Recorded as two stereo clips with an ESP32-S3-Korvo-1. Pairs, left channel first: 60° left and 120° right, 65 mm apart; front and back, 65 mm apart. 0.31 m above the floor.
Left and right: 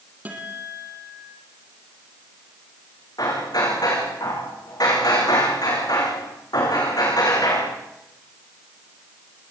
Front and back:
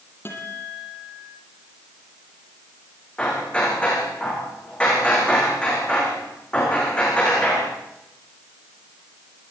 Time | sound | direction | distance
0.2 | a guitar | 55° right | 6 m
3.2 | hammering | 70° left | 9.5 m